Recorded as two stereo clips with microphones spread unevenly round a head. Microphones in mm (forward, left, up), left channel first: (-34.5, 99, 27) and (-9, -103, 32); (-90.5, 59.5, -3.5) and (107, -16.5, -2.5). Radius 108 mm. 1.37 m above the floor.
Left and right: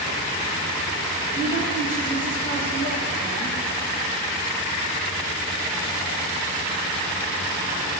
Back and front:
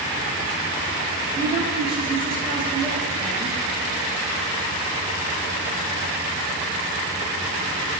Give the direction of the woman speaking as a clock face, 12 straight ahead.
11 o'clock.